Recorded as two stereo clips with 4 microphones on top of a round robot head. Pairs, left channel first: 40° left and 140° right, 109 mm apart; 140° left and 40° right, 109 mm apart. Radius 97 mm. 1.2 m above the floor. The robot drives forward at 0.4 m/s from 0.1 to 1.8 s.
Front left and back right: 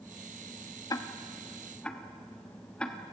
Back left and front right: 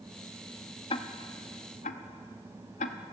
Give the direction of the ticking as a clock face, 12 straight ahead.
9 o'clock.